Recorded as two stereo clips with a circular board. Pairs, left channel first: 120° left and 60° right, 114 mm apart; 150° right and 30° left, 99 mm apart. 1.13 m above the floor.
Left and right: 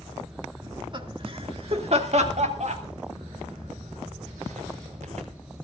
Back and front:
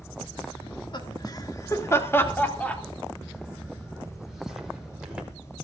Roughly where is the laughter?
Behind right.